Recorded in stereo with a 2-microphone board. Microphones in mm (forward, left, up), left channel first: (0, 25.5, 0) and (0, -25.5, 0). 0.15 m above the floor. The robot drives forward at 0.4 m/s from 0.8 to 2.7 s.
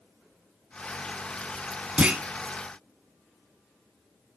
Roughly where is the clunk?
Right.